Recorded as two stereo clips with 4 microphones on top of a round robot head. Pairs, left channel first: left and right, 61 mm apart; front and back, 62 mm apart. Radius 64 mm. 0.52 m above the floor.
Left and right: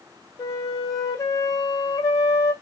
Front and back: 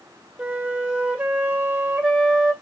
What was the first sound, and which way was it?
A flute, 110° left.